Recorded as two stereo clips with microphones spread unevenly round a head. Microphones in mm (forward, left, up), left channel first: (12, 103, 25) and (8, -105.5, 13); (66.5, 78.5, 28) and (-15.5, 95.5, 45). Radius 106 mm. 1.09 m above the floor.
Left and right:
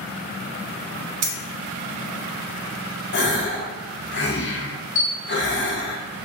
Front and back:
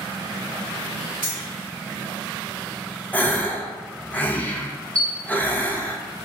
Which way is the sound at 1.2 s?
90° right.